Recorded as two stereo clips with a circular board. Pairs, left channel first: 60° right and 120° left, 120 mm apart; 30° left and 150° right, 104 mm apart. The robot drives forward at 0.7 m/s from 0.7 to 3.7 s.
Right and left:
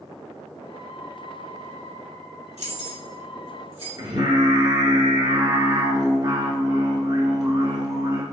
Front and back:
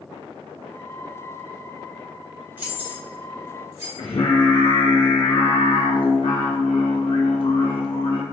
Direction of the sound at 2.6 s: 140° left.